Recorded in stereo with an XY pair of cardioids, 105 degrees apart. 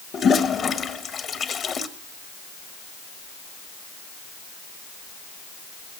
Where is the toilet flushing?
45° left, 1.5 m.